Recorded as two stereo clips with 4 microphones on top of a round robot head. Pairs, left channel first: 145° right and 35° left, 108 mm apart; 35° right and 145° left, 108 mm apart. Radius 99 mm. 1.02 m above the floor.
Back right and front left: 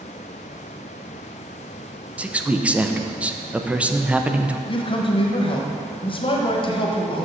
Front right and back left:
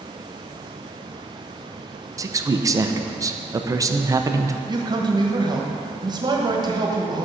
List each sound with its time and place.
2.2 s a man speaking: 105° left, 0.7 m
4.7 s a man speaking: 170° right, 1.3 m